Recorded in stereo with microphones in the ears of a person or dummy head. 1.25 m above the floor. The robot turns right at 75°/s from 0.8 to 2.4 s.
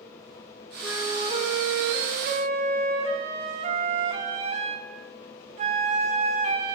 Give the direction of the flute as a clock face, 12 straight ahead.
6 o'clock.